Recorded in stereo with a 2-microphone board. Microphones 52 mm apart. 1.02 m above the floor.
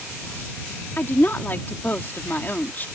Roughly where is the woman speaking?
Left.